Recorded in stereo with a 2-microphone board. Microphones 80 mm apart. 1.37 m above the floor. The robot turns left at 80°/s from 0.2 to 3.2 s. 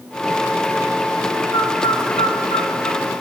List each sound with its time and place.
1.5 s a bird: 30° left (ahead or behind), 3.5 m